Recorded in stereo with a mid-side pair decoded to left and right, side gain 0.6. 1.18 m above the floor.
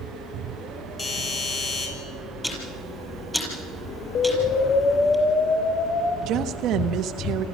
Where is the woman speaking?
60° right, 1.2 m.